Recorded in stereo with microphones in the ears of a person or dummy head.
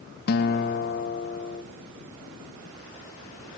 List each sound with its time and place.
0.3 s a guitar: 50° left (ahead or behind), 1.5 m